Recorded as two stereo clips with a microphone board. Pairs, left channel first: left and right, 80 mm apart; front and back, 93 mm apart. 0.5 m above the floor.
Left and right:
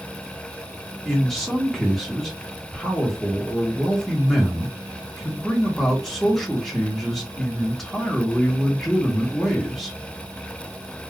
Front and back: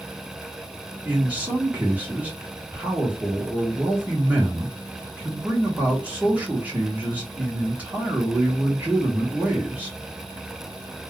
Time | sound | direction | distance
1.1 | a man speaking | 170° left | 1.0 m